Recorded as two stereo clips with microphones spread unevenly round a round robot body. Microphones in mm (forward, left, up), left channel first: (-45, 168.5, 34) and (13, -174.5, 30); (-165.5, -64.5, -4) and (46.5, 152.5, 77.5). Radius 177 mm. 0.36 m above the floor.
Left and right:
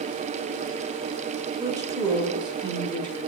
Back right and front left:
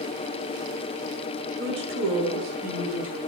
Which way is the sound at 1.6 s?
10° right.